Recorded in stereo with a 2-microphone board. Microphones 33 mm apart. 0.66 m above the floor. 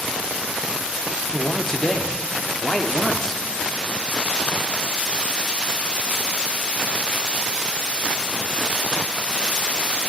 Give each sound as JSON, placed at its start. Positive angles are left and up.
{"t": 1.3, "sound": "a man speaking", "side_deg": 20, "distance_m": 1.0}